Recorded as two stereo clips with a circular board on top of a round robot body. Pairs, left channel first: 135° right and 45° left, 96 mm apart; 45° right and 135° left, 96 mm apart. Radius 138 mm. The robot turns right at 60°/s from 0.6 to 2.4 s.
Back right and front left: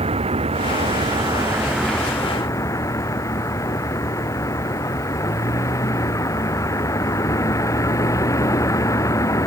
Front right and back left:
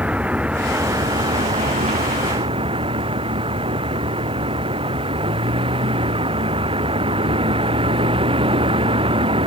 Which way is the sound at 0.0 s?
60° left.